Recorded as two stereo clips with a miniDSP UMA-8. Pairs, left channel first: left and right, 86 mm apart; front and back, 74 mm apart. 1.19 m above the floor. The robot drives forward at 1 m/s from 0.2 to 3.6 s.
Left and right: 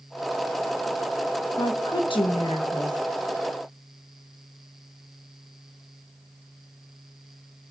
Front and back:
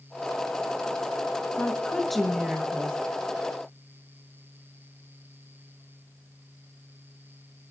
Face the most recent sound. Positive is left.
turn(degrees=140)